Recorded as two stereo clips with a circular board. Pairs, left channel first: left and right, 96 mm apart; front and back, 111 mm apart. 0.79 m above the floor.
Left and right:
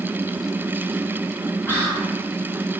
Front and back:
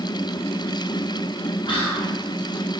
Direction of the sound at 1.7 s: 25° left.